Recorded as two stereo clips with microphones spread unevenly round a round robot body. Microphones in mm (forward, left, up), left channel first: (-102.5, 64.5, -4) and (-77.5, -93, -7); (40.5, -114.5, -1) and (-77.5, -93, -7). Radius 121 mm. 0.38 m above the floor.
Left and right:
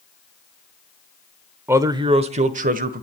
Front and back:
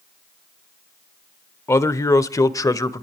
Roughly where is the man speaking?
Ahead right.